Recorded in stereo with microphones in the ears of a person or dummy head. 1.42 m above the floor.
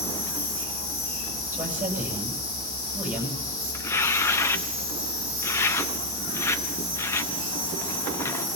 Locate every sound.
0.0 s an insect: 55° left (ahead or behind), 8 m
1.5 s a man speaking: 10° right (ahead or behind), 8.5 m
3.7 s tearing paper: 15° left (ahead or behind), 0.6 m